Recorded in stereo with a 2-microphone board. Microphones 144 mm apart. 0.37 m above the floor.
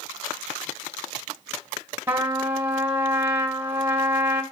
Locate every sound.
2.1 s a trumpet: 15° right (ahead or behind), 1.9 m